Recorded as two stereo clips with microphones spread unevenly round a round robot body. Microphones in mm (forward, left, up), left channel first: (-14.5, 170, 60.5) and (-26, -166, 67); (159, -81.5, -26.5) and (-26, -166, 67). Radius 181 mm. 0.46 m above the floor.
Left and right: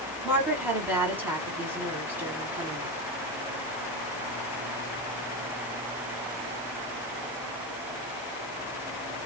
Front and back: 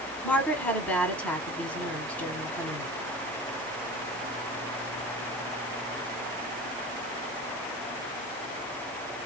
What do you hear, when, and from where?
0.2 s a woman speaking: 10° right, 1.2 m